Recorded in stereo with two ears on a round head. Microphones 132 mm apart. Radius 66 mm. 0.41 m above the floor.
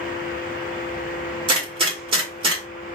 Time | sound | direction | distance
1.5 | a gunshot | 35° right (ahead or behind) | 1.7 m